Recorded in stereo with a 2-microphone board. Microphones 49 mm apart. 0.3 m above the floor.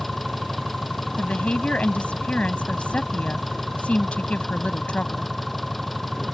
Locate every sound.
0.0 s an engine running: 5° left (ahead or behind)
1.2 s a woman speaking: 30° left (ahead or behind)